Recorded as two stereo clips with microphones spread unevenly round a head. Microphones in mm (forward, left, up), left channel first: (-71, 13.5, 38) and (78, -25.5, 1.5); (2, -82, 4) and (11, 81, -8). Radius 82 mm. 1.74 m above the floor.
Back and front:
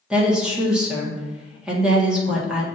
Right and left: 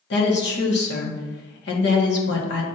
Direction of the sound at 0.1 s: 105° right.